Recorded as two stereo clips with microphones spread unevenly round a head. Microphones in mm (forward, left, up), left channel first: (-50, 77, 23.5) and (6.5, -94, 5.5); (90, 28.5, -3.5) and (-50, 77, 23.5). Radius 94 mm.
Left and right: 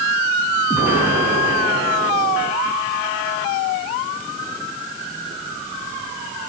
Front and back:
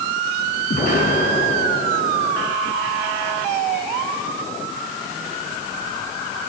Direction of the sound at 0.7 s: 10° left.